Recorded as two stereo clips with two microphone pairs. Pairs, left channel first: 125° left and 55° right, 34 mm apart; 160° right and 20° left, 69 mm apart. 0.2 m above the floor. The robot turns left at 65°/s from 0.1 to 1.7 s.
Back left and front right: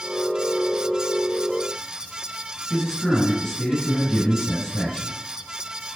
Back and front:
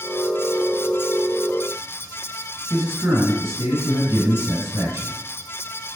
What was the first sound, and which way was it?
A man speaking, 40° left.